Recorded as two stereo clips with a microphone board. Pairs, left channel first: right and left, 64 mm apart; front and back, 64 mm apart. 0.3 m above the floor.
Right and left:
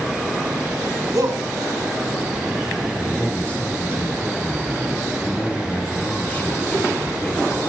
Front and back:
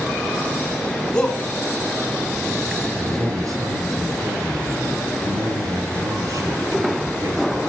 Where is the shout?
75° left, 2.5 m.